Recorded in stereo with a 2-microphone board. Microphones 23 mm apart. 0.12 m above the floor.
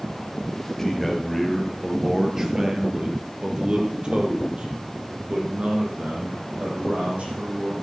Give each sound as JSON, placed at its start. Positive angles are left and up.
{"t": 0.8, "sound": "a man speaking", "side_deg": 10, "distance_m": 2.0}